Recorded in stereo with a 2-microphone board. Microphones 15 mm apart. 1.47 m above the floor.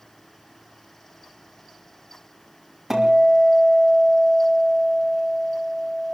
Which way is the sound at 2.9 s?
30° right (ahead or behind).